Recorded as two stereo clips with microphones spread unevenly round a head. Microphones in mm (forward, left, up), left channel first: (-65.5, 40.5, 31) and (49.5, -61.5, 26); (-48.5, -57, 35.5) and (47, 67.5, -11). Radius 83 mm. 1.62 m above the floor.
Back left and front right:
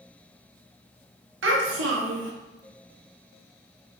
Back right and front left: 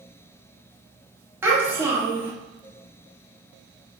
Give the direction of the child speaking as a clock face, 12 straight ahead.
1 o'clock.